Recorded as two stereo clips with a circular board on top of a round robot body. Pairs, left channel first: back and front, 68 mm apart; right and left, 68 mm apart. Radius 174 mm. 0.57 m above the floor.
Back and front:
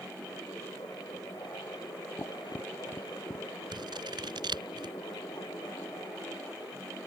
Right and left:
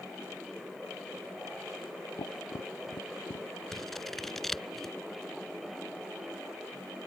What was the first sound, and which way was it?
Tapping, 115° right.